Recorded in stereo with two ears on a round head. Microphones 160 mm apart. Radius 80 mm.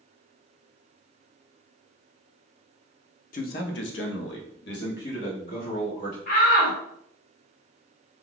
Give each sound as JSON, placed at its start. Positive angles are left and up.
{"t": 3.3, "sound": "a man speaking", "side_deg": 45, "distance_m": 0.7}
{"t": 6.3, "sound": "a shout", "side_deg": 50, "distance_m": 1.3}